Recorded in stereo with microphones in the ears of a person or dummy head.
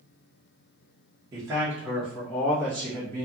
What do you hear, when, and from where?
1.3 s a man speaking: 20° right (ahead or behind), 0.9 m; by 3.2 s 15° left (ahead or behind), 1.7 m